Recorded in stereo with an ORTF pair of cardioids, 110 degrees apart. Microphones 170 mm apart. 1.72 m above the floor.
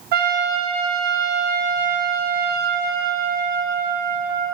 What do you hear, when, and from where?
0.1 s a trumpet: 65° right, 1.0 m